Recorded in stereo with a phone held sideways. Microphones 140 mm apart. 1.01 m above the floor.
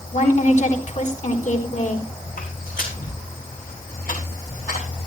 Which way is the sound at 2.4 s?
75° left (ahead or behind).